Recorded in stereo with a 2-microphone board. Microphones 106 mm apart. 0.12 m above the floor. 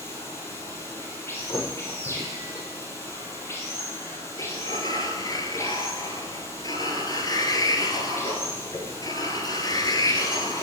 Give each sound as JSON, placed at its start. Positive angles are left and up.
{"t": 0.0, "sound": "running water", "side_deg": 25, "distance_m": 2.5}
{"t": 1.5, "sound": "a thud", "side_deg": 35, "distance_m": 6.0}
{"t": 4.4, "sound": "a sliding door", "side_deg": 40, "distance_m": 1.6}